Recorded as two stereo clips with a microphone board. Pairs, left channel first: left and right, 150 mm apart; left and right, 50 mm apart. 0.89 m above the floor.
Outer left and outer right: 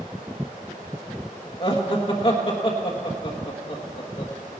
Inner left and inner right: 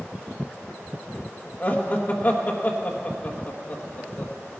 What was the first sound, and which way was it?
Laughter, 40° left (ahead or behind).